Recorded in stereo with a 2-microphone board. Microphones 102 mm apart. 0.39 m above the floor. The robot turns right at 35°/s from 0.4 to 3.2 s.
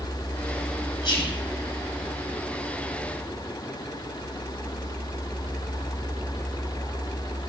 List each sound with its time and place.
1.0 s whispering: 55° left (ahead or behind), 2.5 m; by 1.4 s 60° left (ahead or behind), 2.5 m